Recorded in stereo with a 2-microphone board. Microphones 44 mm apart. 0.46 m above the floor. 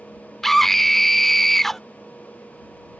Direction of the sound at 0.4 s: 10° left (ahead or behind).